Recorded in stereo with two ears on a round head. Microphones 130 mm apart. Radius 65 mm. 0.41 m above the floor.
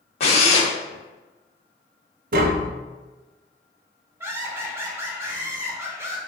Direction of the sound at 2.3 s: 65° right (ahead or behind).